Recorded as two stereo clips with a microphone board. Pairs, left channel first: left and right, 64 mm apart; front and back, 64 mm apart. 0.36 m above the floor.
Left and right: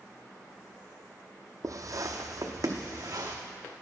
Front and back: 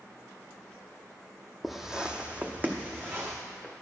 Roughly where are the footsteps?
Right.